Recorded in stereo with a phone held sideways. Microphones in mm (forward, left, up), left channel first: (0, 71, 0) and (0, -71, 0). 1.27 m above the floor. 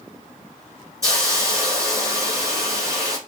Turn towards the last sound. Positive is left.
turn(degrees=-25)  # may be behind; listen again after turning